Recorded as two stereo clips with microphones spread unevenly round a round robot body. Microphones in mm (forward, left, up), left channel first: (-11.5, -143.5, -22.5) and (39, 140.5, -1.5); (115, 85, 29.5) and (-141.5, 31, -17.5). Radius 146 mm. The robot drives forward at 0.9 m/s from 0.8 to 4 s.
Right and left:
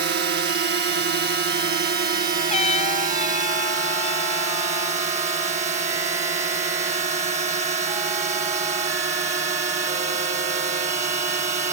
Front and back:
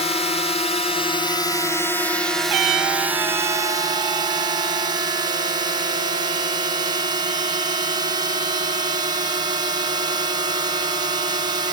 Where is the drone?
75° left; by 11.7 s 140° left.